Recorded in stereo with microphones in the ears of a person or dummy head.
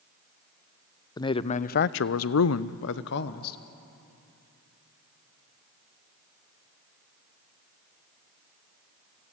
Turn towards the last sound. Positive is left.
turn(degrees=55)  # may be behind; listen again after turning